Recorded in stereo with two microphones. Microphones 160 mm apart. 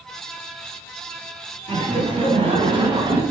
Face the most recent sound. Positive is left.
turn(degrees=-25)  # may be behind; listen again after turning